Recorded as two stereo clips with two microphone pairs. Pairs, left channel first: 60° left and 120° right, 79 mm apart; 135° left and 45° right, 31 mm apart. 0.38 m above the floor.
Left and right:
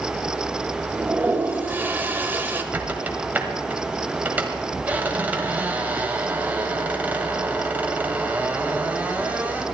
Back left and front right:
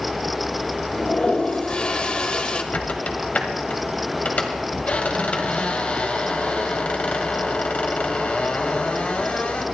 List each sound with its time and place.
0.9 s a toilet flushing: straight behind, 1.2 m
2.7 s a squeak: 170° left, 1.7 m